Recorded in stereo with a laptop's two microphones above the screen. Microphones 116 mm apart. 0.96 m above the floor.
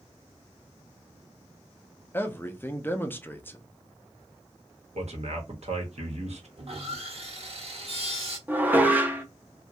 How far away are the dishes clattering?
About 0.6 m.